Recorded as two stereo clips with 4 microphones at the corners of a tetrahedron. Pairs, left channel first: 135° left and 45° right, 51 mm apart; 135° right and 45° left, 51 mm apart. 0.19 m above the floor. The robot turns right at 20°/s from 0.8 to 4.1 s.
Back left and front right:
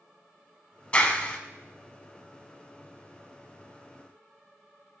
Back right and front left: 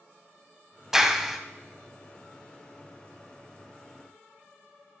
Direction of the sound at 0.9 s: 115° left.